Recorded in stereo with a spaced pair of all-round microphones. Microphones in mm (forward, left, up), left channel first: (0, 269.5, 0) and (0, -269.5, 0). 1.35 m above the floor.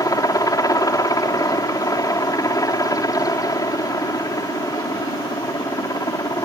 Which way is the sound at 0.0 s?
5° left (ahead or behind).